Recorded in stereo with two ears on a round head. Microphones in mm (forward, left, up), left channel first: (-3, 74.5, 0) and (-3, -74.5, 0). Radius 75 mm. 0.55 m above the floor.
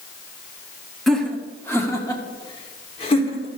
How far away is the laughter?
About 1.4 m.